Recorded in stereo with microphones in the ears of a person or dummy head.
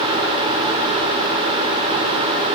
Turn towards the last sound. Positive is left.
No sound to turn to.